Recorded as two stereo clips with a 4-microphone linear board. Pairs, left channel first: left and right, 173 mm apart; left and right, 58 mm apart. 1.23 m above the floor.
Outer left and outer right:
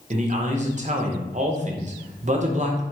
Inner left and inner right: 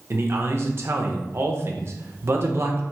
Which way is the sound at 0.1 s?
45° right (ahead or behind).